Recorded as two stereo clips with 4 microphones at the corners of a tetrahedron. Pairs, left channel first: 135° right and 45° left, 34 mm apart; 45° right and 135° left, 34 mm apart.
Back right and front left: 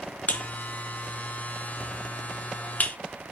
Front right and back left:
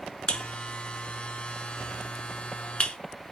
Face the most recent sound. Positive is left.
turn(degrees=-95)